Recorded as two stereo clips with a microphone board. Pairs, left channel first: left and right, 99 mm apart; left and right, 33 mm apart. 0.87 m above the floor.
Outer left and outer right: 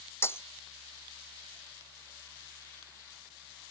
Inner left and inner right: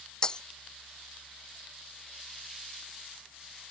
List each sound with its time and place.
0.2 s breaking glass: 25° left (ahead or behind)